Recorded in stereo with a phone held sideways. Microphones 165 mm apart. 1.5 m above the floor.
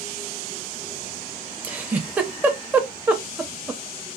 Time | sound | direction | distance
1.6 | a giggle | 10° right (ahead or behind) | 0.7 m